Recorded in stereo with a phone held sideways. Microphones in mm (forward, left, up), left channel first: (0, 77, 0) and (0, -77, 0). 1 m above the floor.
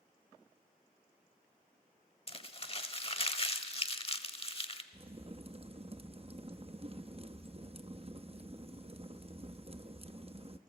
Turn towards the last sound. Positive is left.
turn(degrees=-40)  # may be behind; listen again after turning